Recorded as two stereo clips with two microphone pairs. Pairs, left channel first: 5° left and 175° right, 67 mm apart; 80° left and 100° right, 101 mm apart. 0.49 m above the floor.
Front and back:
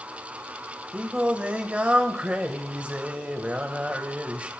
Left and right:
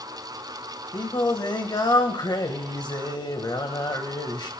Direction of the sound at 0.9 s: 115° left.